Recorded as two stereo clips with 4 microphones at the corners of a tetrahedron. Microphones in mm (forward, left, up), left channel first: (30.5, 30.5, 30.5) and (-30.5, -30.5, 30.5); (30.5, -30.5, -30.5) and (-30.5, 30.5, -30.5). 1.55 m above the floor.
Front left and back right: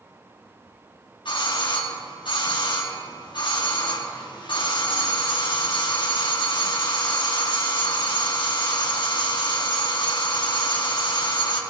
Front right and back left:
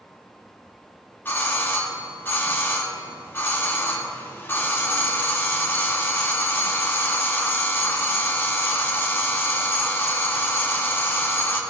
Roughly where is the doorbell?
Ahead.